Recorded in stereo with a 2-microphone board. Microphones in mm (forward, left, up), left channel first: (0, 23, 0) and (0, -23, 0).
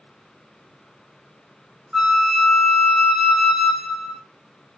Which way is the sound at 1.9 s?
5° right (ahead or behind).